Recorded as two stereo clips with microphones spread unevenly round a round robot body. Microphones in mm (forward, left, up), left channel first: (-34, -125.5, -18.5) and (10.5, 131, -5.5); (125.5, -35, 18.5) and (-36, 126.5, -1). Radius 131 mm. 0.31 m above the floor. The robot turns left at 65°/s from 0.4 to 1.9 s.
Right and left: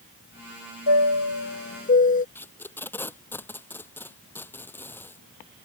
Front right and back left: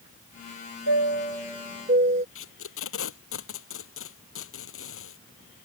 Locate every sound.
0.9 s a chime: 95° right; by 2.2 s 160° right
2.4 s tape being pulled: 15° right